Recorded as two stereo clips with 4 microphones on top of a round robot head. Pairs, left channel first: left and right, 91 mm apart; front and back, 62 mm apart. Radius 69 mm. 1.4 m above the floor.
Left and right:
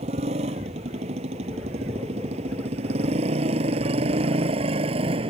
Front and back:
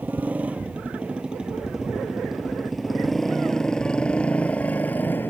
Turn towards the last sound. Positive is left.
turn(degrees=-70)